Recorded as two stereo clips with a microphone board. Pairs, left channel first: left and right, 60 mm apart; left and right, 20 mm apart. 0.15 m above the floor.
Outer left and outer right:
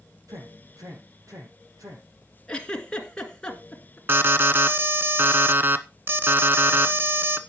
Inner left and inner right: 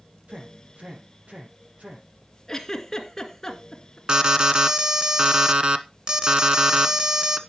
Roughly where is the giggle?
Centre.